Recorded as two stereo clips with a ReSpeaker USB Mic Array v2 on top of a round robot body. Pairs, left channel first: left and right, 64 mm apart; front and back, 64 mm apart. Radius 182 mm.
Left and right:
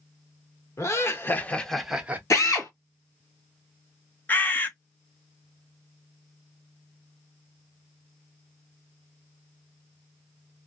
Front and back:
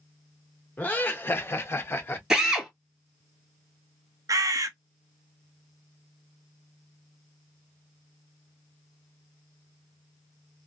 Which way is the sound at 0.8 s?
60° left.